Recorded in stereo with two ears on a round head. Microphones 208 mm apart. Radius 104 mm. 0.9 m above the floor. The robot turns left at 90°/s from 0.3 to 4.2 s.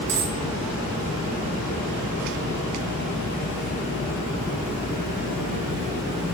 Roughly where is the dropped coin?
Right.